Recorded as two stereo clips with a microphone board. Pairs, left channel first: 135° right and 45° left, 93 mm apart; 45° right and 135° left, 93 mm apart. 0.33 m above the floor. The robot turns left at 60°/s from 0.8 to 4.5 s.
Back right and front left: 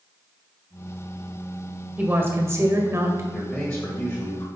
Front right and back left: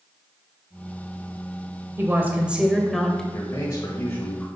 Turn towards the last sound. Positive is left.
turn(degrees=-115)